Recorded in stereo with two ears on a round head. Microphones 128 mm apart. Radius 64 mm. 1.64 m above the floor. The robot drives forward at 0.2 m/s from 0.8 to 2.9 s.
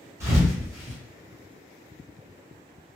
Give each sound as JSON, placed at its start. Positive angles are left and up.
{"t": 0.2, "sound": "a thud", "side_deg": -20, "distance_m": 1.5}